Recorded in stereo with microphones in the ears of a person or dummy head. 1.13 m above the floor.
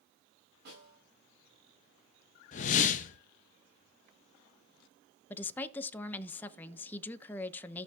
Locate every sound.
0.7 s a snare drum: 55° right (ahead or behind), 9.5 m
2.5 s a whoosh: 45° left (ahead or behind), 0.6 m
5.3 s a woman speaking: 10° left (ahead or behind), 0.8 m